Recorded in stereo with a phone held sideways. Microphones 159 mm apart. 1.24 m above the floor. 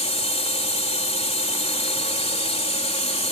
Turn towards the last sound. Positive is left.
turn(degrees=40)  # may be behind; listen again after turning